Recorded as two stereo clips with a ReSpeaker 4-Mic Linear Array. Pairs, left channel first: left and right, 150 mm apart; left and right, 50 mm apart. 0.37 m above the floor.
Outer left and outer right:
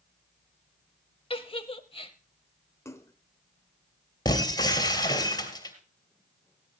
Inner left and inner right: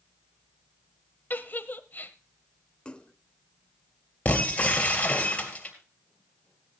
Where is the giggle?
40° left (ahead or behind), 0.8 m.